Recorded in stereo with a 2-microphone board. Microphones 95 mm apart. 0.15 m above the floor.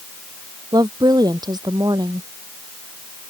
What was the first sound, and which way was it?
A woman speaking, 45° right (ahead or behind).